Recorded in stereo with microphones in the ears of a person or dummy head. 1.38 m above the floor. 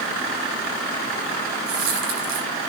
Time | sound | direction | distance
1.7 | a dropped coin | 75° right (ahead or behind) | 5 m